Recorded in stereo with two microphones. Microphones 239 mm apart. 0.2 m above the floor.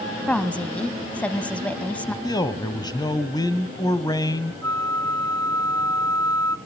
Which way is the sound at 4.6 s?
15° left (ahead or behind).